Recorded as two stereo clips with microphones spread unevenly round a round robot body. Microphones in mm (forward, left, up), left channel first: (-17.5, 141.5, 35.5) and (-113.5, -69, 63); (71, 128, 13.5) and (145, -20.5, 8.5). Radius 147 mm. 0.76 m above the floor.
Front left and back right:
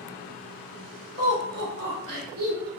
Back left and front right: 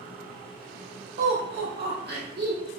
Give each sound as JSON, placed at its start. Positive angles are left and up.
{"t": 1.2, "sound": "laughter", "azimuth_deg": -55, "distance_m": 1.8}